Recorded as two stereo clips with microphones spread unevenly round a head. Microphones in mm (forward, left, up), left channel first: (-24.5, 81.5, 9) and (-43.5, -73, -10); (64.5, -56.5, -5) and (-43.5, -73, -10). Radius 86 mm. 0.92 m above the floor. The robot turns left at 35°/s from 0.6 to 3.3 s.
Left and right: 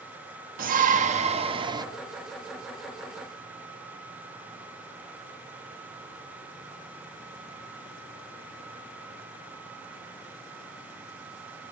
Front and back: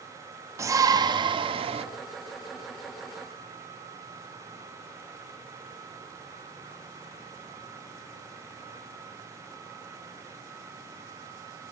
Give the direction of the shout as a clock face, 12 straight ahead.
4 o'clock.